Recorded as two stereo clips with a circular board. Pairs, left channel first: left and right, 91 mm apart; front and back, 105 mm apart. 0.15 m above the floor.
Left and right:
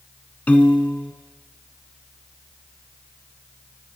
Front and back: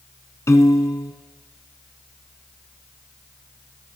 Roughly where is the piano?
Ahead left.